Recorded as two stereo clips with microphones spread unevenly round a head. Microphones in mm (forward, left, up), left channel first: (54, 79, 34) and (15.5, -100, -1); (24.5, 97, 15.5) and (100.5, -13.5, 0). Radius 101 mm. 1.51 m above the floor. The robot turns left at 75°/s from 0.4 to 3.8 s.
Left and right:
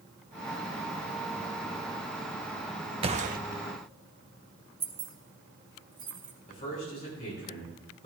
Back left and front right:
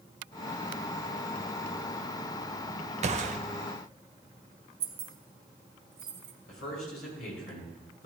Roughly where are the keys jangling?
Ahead right.